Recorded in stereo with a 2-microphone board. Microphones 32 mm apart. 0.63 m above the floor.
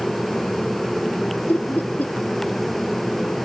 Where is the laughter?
65° left (ahead or behind).